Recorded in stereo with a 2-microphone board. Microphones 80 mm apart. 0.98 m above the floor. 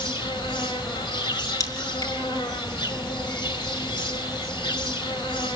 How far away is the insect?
About 3 m.